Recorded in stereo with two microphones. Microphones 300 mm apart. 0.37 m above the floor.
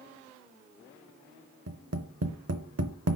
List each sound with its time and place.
1.7 s tapping: 55° right (ahead or behind), 0.7 m